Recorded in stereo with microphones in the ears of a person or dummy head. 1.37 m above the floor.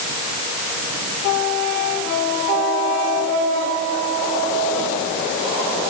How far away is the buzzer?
I don't hear a buzzer.